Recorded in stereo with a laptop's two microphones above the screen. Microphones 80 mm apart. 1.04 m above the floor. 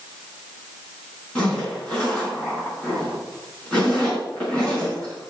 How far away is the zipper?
About 5 m.